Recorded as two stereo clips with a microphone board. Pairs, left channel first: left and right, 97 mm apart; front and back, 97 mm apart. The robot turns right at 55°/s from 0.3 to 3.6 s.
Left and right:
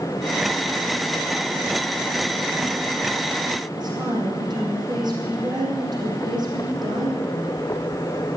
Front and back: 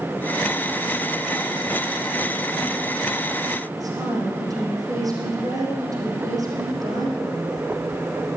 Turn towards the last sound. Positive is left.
turn(degrees=-130)